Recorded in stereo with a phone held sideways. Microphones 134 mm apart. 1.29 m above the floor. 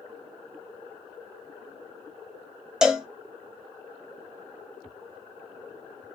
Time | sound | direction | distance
2.8 | a cowbell | 5° right (ahead or behind) | 0.5 m